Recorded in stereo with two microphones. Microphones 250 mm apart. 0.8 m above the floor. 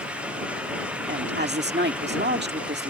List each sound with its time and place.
1.1 s a woman speaking: 40° right (ahead or behind)